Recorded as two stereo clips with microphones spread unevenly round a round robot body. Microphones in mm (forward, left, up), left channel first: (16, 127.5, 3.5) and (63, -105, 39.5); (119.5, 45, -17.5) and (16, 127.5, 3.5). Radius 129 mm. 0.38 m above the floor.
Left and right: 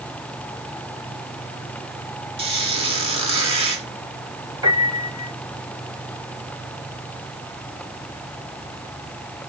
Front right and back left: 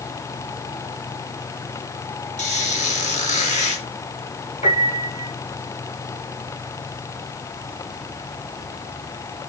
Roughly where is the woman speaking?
No woman speaking in this recording.